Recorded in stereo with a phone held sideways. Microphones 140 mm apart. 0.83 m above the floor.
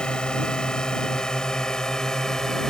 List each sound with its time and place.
0.0 s a drone: 5° left (ahead or behind)